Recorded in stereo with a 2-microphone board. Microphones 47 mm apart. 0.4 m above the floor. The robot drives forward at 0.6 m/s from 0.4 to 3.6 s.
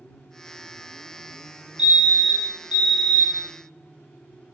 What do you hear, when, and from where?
1.8 s a fire alarm: 25° right (ahead or behind), 2.0 m